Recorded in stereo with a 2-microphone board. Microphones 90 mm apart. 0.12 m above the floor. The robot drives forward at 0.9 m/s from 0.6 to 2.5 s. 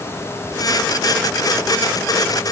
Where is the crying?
No crying in this recording.